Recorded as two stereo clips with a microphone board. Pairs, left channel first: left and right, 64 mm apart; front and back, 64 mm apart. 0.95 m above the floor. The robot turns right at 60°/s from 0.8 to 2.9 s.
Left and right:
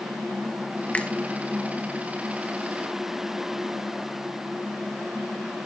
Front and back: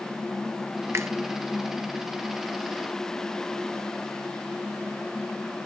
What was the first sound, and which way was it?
A finger snap, 150° left.